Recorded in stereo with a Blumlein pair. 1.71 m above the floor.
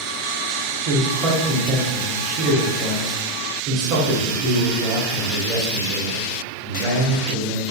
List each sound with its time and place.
0.8 s a man speaking: 40° right, 0.9 m